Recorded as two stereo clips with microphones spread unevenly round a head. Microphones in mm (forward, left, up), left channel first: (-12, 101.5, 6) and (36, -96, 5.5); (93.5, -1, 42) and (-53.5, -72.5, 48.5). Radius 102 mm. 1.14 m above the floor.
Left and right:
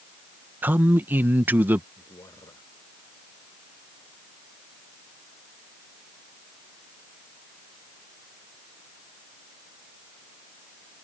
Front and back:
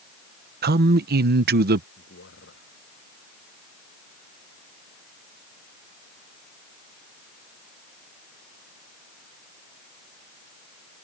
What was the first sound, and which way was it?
A man speaking, 155° right.